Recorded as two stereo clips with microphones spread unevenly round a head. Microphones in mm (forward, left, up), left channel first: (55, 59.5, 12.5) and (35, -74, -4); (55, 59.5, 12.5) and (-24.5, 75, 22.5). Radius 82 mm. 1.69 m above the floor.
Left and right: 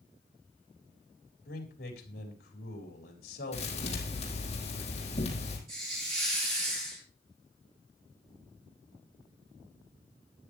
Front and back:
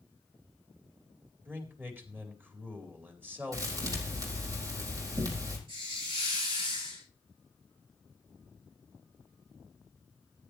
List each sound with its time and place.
1.4 s a man speaking: 105° left, 4 m
3.5 s a thud: 130° left, 4.5 m
5.7 s a hiss: 155° right, 9 m